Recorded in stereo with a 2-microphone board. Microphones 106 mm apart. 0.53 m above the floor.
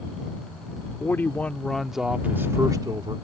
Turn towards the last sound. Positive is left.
turn(degrees=-45)  # may be behind; listen again after turning